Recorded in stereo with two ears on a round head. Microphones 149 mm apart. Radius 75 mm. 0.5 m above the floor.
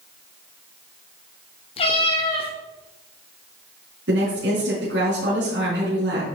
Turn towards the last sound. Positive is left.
turn(degrees=-80)